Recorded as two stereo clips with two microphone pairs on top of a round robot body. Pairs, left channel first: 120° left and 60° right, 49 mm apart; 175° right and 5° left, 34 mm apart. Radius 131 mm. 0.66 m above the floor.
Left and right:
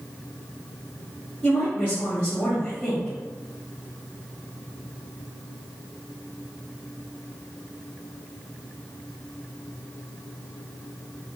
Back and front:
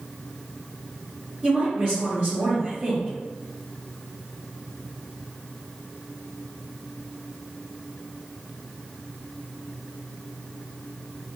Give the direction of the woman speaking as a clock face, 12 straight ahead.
10 o'clock.